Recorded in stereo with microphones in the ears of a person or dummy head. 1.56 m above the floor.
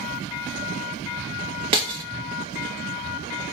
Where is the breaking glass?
25° right (ahead or behind), 0.9 m.